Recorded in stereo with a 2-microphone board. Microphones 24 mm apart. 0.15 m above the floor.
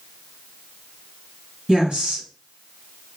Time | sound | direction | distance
1.7 | a woman speaking | 45° right (ahead or behind) | 2 m